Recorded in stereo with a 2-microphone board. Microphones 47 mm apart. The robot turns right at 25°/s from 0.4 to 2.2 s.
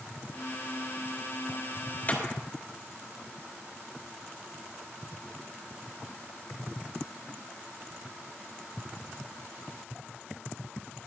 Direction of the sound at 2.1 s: 35° left (ahead or behind).